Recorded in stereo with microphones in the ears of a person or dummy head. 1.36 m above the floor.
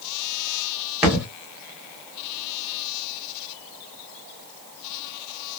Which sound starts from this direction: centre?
A thud, at 1.0 s.